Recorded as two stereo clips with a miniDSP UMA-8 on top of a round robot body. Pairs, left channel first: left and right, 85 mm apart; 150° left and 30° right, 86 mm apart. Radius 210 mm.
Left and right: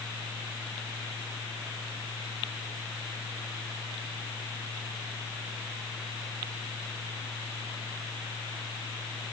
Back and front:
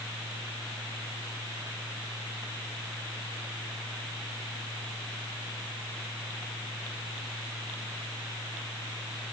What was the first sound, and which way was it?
Only background noise.